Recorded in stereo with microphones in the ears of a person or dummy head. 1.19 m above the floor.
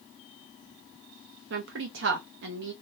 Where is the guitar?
I don't hear a guitar.